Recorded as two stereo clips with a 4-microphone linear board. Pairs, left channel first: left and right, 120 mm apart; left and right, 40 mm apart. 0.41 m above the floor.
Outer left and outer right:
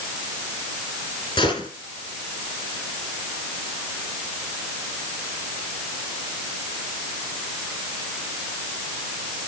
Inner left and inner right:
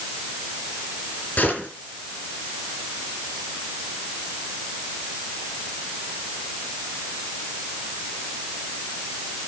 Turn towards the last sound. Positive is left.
turn(degrees=35)  # may be behind; listen again after turning